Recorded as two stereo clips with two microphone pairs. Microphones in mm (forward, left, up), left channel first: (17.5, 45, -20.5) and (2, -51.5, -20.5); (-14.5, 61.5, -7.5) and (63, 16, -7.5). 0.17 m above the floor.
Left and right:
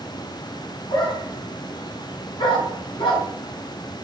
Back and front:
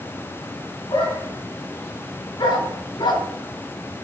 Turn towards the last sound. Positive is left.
turn(degrees=110)